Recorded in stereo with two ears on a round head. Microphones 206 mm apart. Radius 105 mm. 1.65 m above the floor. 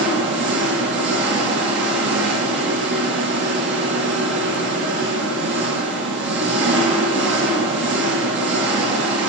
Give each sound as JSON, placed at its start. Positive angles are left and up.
{"t": 0.0, "sound": "an engine running", "side_deg": -50, "distance_m": 1.9}